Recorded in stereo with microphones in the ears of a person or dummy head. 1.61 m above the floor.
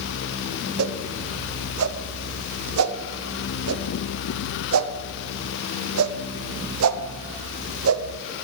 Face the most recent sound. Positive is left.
turn(degrees=-85)